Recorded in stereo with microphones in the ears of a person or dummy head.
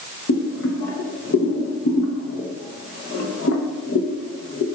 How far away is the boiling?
About 1.0 m.